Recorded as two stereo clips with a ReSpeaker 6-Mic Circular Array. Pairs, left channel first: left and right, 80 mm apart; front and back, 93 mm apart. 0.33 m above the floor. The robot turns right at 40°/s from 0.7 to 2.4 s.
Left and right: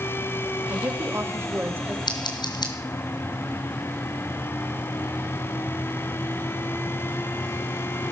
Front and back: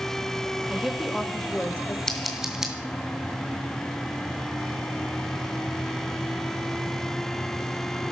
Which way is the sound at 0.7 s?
100° right.